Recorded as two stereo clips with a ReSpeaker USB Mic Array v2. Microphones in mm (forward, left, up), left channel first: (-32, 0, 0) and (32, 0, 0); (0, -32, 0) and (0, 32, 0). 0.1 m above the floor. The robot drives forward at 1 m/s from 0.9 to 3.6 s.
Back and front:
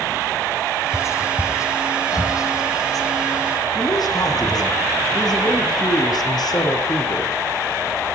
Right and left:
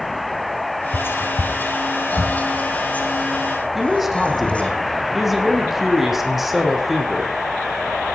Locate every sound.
0.9 s whispering: 140° right, 2.5 m; by 4.8 s 165° right, 4.5 m
3.8 s a man speaking: 175° left, 4 m